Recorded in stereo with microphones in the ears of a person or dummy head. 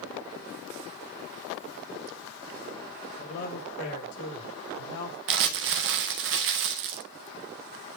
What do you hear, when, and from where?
3.2 s a man speaking: 70° left (ahead or behind), 4 m; by 5.2 s 80° left, 5.5 m
5.3 s crumpling: 60° right (ahead or behind), 1.1 m